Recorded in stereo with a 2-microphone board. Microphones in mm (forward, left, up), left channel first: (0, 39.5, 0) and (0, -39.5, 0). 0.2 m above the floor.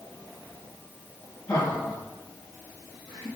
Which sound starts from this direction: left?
Laughter, at 1.5 s.